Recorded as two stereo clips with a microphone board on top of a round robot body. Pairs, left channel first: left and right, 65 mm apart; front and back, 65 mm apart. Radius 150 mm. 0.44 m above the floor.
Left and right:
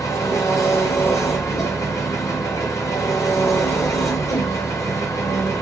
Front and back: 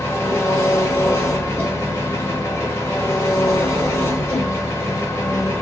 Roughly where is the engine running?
Ahead left.